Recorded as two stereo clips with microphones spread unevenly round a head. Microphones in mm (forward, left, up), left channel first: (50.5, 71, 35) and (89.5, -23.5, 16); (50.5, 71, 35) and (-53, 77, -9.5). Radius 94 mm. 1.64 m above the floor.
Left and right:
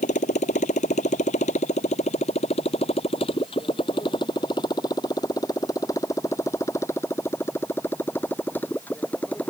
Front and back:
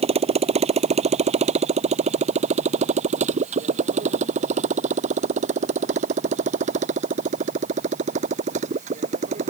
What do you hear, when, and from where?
0.0 s a motorcycle: 155° left; by 9.5 s 165° right